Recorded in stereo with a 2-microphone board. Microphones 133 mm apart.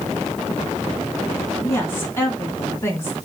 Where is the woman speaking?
20° left (ahead or behind), 3.5 m.